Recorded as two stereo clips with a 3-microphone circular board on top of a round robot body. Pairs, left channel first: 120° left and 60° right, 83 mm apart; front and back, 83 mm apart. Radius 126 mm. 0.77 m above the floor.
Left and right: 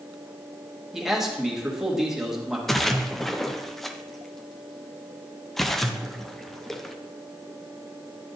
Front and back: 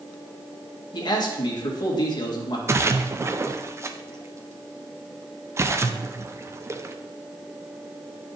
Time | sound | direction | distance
0.9 | a man speaking | 25° left | 1.8 m
2.7 | a splash | 155° right | 0.8 m